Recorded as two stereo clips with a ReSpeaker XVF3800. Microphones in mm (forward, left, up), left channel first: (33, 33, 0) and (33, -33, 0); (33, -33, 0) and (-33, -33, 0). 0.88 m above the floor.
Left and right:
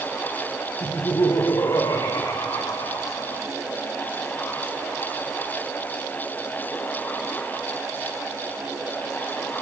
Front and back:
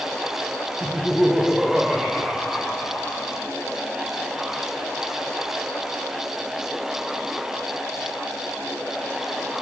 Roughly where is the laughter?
Left.